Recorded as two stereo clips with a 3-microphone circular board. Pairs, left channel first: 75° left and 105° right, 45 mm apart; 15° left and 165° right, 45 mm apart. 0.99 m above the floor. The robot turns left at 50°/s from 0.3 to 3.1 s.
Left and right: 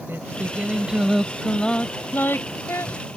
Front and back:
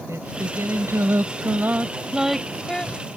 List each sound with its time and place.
0.1 s singing: 150° right; by 3.0 s 75° left